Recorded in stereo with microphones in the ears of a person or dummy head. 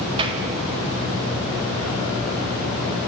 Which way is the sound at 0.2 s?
30° right (ahead or behind).